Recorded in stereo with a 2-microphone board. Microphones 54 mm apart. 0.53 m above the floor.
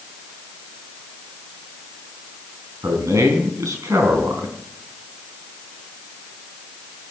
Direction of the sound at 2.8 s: 80° right.